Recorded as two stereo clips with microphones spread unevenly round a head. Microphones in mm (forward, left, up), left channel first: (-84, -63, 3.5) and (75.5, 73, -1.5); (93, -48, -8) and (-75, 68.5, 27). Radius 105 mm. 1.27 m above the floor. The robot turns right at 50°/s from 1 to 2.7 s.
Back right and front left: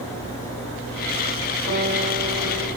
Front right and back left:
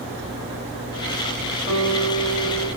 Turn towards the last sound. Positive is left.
turn(degrees=135)